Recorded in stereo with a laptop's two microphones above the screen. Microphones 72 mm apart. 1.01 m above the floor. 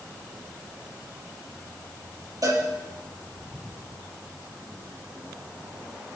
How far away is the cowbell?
About 5.5 m.